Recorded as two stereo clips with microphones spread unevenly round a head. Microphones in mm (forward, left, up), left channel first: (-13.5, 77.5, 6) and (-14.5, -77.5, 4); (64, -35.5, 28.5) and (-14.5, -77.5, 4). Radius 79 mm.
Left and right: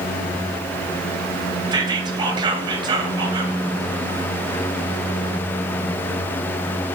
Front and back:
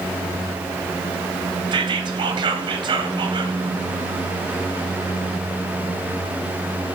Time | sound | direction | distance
1.7 | whispering | 155° right | 0.7 m